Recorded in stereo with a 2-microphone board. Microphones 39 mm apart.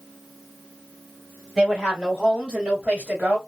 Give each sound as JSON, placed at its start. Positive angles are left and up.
{"t": 1.6, "sound": "a woman speaking", "side_deg": 0, "distance_m": 1.7}